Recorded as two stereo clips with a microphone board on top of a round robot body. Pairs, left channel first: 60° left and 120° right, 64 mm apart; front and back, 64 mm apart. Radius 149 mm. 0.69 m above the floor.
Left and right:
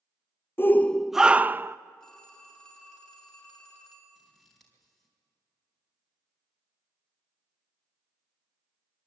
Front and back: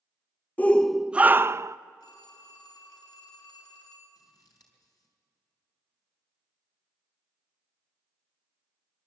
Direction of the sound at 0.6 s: 45° left.